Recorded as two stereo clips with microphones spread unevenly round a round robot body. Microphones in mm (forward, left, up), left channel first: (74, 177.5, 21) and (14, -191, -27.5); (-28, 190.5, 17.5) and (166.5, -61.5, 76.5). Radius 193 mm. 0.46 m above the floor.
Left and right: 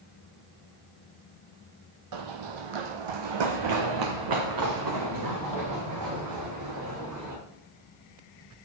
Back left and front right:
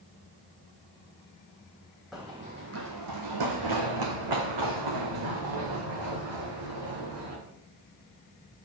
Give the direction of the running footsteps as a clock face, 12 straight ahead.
5 o'clock.